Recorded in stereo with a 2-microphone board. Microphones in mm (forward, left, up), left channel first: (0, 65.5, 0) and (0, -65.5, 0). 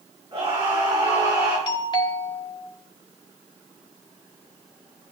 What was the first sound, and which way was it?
A scream, 35° right (ahead or behind).